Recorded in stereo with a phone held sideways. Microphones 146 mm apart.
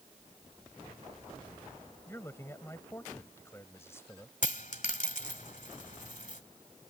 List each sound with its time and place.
2.1 s a man speaking: 15° left (ahead or behind)
4.4 s a dropped coin: 60° left (ahead or behind)